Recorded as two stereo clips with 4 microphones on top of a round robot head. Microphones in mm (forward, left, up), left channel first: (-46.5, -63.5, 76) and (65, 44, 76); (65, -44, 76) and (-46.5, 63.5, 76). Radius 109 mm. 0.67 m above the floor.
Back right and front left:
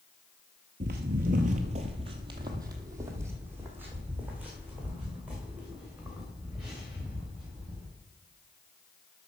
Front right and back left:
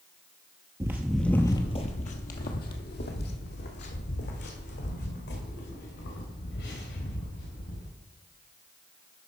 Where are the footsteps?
70° left, 0.8 m; by 7.9 s 40° right, 4.5 m.